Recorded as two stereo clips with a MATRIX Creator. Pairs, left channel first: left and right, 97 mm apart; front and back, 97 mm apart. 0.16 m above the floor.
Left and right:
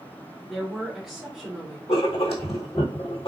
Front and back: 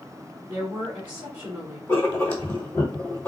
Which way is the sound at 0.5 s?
175° right.